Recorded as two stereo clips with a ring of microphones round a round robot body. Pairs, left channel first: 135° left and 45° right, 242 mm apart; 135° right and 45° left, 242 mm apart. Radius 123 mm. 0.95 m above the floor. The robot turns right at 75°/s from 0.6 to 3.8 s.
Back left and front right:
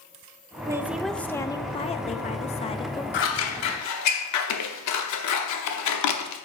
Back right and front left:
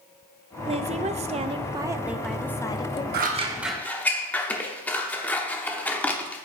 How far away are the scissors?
About 0.7 m.